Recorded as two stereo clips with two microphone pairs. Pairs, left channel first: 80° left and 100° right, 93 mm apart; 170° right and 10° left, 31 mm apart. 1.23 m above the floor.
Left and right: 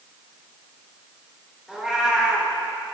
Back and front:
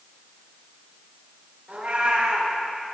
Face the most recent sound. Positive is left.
turn(degrees=-20)